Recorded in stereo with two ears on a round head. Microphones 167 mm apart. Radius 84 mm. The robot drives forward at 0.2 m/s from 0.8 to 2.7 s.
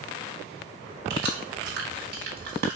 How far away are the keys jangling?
About 1.3 m.